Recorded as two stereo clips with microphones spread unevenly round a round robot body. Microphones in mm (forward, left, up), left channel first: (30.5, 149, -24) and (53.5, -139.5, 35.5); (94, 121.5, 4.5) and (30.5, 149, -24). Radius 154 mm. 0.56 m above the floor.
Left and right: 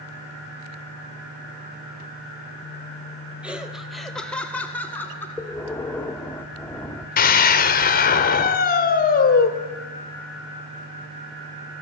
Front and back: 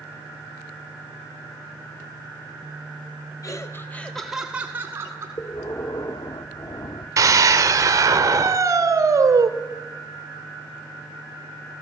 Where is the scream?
150° left, 1.4 m.